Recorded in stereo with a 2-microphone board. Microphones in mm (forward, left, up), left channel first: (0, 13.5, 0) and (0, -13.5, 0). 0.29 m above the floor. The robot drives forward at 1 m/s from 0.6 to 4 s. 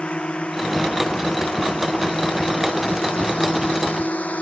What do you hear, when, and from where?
0.0 s a drone: 40° left (ahead or behind); by 4.4 s 55° left (ahead or behind)